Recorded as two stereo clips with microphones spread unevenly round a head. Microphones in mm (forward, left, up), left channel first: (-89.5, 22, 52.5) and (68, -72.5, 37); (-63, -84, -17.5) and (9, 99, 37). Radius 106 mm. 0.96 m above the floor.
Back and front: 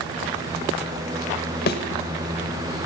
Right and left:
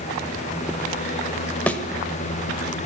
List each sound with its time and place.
1.7 s a thud: 150° left, 0.9 m